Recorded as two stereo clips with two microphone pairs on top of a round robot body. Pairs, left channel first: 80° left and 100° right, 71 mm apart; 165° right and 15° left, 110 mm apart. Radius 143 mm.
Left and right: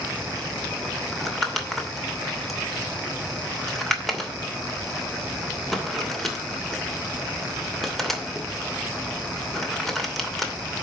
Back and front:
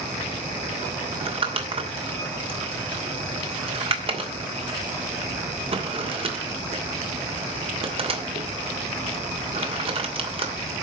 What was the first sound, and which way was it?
Crumpling, 5° right.